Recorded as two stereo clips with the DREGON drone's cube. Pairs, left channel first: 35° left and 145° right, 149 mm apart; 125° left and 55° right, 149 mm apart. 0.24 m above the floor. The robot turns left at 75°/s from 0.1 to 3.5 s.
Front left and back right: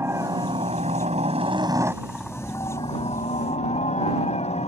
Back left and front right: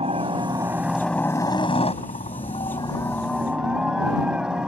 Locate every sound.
0.0 s a helicopter: 80° right; by 4.7 s 25° left